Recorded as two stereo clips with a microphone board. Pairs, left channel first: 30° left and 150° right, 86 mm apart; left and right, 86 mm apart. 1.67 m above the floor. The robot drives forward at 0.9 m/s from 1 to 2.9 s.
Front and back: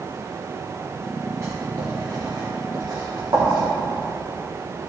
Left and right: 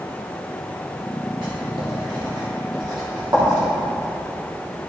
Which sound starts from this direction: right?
Writing, at 1.4 s.